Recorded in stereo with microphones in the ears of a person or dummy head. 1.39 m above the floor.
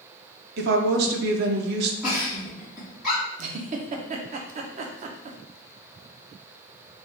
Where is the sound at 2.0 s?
5° right (ahead or behind), 1.2 m.